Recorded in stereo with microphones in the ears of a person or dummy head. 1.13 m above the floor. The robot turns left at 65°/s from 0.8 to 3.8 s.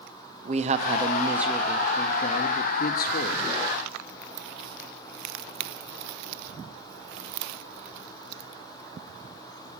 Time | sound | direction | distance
0.5 | a man speaking | 130° right | 0.7 m